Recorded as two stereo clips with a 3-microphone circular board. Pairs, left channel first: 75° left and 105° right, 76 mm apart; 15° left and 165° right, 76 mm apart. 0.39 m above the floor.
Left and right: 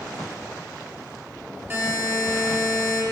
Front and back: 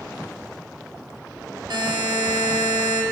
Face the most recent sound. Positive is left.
turn(degrees=-160)